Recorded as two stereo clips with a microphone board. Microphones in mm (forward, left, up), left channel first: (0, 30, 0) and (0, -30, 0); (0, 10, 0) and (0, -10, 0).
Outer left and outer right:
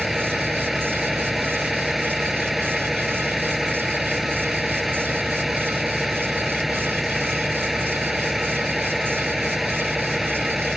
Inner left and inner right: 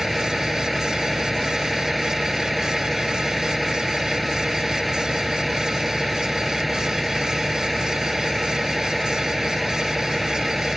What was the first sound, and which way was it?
A vehicle, centre (ahead or behind).